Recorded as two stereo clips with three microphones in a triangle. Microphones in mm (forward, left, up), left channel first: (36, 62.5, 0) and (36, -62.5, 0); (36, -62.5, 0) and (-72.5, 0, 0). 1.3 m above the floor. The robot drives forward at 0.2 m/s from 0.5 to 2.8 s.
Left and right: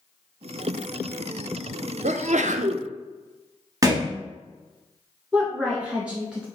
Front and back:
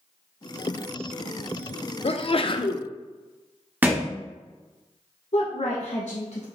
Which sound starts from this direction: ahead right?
A sneeze, at 2.0 s.